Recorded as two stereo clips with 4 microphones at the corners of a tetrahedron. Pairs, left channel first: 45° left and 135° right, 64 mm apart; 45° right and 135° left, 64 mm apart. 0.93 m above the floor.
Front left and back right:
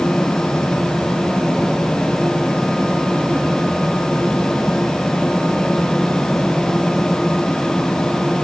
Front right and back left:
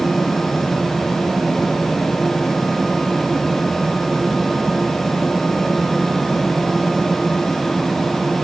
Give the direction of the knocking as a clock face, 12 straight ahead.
No knocking in this recording.